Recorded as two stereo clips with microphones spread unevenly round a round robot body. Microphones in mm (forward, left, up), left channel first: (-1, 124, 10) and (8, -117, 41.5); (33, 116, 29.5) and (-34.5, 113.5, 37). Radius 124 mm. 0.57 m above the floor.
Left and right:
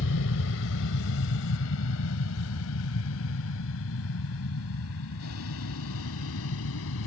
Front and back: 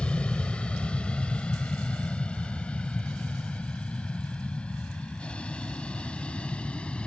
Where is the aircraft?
75° left.